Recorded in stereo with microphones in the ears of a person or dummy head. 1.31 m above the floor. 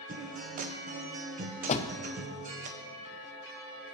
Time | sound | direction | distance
0.1 | a guitar | 45° right (ahead or behind) | 0.7 m
1.7 | a door slam | 35° left (ahead or behind) | 0.5 m